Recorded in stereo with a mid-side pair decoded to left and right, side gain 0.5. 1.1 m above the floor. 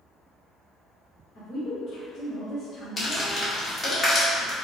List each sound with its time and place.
1.4 s a woman speaking: 45° left, 1.0 m
3.0 s crumpling: 25° left, 1.5 m